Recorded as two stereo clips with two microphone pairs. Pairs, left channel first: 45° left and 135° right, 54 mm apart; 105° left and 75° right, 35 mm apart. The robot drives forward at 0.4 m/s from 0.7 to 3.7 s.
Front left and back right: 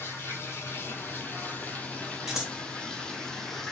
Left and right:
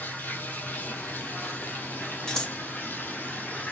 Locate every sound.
0.0 s running water: 90° left, 1.5 m; by 3.7 s 125° left, 1.9 m
2.3 s scissors: 145° left, 1.7 m; by 2.5 s 150° left, 1.8 m